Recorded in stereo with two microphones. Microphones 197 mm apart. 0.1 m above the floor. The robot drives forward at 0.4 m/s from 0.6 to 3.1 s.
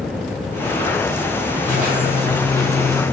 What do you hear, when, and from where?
1.6 s a squeak: 45° right (ahead or behind), 1.8 m; by 3.0 s 55° right (ahead or behind), 1.6 m